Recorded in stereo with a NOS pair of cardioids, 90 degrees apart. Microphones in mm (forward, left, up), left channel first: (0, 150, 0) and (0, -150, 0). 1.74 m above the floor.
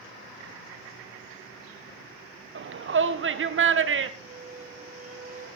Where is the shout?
40° right, 1.4 m.